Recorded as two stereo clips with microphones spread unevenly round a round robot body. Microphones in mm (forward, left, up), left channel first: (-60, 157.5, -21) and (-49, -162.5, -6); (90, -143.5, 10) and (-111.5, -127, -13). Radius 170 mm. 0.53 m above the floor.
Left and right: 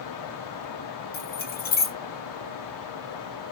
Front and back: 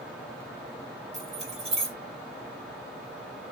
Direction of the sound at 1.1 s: 135° left.